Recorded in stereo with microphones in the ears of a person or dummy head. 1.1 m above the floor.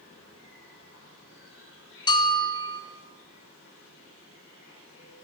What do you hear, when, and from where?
0.0 s an insect: 80° left, 3 m
2.1 s a bell: 25° left (ahead or behind), 0.5 m